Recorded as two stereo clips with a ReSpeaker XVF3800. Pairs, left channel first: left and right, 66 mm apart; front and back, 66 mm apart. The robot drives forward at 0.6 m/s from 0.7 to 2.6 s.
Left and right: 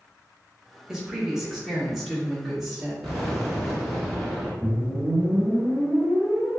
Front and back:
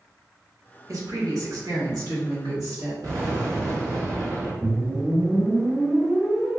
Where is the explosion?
Straight behind, 1.5 m.